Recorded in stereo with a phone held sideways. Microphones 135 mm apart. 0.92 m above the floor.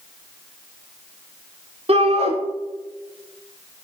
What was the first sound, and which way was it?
A shout, 50° right (ahead or behind).